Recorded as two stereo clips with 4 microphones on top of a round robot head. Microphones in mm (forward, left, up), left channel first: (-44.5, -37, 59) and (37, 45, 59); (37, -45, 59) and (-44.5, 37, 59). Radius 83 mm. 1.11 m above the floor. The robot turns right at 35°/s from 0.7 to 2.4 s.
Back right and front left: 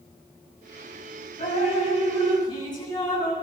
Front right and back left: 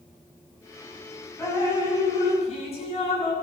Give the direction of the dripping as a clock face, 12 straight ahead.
4 o'clock.